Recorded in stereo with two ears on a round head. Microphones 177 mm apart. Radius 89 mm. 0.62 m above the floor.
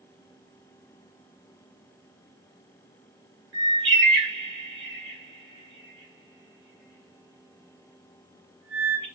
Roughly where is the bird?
Right.